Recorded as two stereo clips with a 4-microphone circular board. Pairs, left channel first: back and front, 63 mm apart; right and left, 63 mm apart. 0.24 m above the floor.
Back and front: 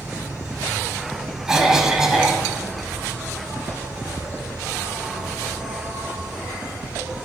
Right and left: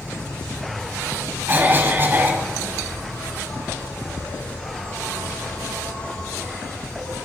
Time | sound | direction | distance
0.0 | an insect | 55° right | 3 m
1.5 | a cough | 75° left | 1.4 m